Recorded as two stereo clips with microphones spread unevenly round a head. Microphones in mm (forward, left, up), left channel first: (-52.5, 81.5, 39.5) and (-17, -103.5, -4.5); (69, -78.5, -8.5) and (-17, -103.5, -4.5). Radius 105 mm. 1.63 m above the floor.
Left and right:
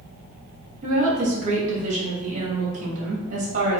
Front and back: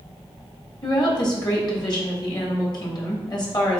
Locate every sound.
0.8 s a woman speaking: 20° right, 2.5 m